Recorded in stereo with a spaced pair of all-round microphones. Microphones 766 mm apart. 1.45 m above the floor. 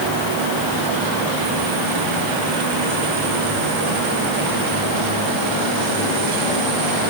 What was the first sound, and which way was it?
Only background noise.